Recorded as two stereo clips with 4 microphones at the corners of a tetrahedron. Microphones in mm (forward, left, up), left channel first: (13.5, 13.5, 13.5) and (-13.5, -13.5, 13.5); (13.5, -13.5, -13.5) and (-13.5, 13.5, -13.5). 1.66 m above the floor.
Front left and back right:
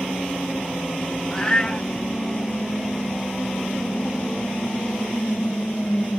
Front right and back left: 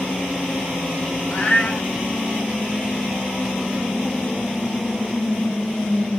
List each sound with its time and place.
1.3 s a cat meowing: 25° right, 1.2 m